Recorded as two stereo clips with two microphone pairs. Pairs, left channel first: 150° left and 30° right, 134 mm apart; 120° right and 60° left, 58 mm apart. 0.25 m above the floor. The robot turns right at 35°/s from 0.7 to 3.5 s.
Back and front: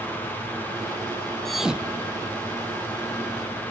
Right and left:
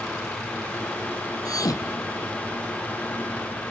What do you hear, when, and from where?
1.4 s a thud: 125° right; by 2.4 s 90° right